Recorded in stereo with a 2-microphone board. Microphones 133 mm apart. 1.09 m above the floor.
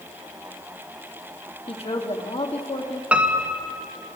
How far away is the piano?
About 1.8 m.